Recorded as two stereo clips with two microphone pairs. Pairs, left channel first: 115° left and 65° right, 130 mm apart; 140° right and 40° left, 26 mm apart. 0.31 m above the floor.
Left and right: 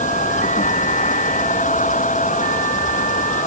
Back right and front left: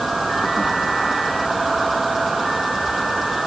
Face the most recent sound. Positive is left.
turn(degrees=125)